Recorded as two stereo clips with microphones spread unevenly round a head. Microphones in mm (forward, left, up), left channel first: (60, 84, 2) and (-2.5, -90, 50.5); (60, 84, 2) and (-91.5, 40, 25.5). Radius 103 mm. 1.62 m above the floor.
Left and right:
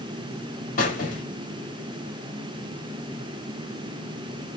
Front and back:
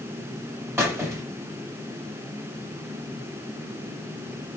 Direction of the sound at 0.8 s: 130° left.